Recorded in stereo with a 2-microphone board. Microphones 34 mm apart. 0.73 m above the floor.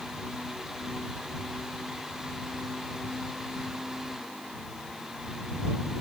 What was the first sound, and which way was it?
Only background noise.